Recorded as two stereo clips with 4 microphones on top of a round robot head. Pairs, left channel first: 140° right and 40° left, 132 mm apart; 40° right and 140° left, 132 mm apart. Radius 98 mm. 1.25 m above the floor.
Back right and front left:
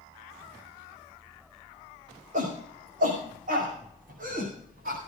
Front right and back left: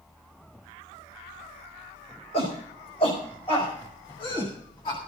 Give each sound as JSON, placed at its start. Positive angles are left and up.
{"t": 2.3, "sound": "a shout", "azimuth_deg": 5, "distance_m": 5.5}